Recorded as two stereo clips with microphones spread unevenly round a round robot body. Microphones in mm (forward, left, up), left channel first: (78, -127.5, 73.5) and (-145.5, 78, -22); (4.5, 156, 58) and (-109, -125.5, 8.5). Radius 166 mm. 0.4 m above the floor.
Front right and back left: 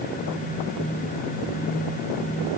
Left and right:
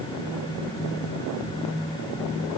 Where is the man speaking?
I don't hear a man speaking.